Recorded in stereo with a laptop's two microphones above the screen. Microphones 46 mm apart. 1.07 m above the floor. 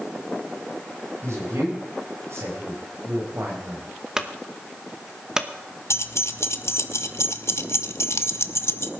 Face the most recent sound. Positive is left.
turn(degrees=75)  # may be behind; listen again after turning